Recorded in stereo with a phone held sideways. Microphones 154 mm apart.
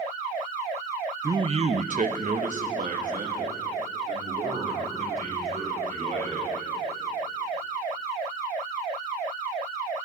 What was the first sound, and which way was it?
A man speaking, 20° right (ahead or behind).